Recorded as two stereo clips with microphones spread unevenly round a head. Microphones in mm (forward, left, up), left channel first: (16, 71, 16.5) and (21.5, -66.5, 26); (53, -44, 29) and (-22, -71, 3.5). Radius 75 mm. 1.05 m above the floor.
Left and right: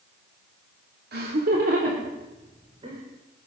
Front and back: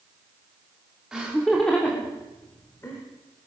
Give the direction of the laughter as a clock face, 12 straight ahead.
3 o'clock.